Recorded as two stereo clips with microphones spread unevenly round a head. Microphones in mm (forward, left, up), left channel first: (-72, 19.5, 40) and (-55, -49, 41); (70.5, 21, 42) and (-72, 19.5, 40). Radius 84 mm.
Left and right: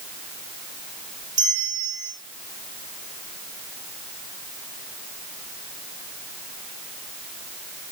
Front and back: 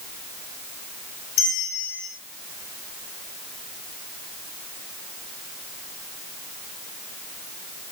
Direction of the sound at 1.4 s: 20° right.